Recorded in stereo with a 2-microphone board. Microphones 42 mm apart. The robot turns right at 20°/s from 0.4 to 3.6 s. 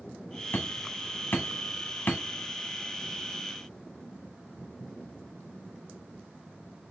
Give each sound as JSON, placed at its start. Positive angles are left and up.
{"t": 0.5, "sound": "hammering", "side_deg": 70, "distance_m": 1.2}